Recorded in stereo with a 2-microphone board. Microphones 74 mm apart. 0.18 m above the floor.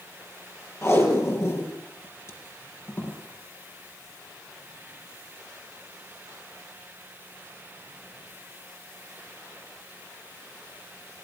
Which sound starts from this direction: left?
Tape being pulled, at 0.8 s.